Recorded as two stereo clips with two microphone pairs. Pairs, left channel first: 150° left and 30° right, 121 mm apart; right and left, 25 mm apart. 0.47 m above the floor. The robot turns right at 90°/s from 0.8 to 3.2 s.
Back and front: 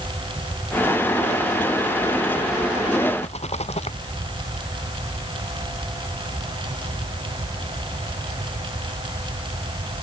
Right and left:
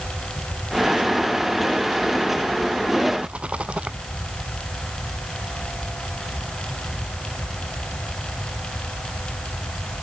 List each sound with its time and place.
3.2 s a rattle: 125° left